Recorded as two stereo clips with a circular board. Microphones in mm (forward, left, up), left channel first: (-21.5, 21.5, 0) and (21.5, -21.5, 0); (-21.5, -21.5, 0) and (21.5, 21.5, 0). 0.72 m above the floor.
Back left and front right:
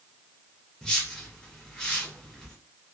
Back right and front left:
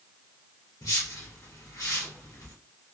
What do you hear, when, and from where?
0.8 s a whoosh: 150° right, 1.8 m